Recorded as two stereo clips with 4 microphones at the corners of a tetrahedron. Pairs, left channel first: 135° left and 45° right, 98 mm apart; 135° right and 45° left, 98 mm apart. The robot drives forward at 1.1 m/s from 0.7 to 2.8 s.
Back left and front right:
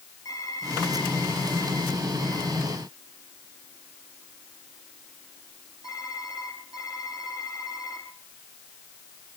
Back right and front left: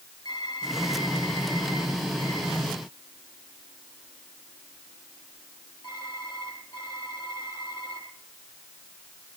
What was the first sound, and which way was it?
Typing on a keyboard, 175° right.